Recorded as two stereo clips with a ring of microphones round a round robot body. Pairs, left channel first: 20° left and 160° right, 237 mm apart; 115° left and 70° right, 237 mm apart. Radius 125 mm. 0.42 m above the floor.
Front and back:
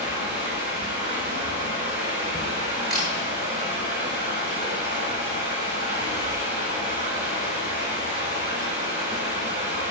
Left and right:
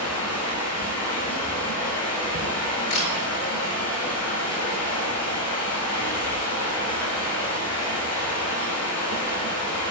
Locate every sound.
0.0 s running water: 140° left, 8 m
2.9 s a camera shutter: 110° left, 9 m